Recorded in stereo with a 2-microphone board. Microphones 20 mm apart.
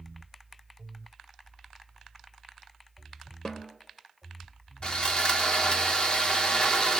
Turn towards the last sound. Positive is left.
turn(degrees=50)  # may be behind; listen again after turning